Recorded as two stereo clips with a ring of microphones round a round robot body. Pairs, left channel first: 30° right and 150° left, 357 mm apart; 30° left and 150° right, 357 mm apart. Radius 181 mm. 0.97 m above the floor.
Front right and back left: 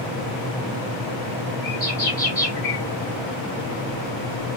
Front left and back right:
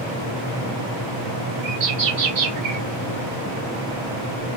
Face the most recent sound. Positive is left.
turn(degrees=-110)